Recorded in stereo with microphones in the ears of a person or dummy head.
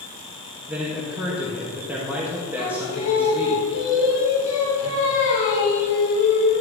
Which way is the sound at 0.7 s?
10° right (ahead or behind).